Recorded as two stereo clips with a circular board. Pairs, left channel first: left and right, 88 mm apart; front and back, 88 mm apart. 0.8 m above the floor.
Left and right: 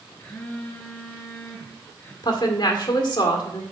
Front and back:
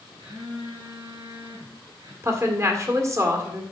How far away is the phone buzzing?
About 5 m.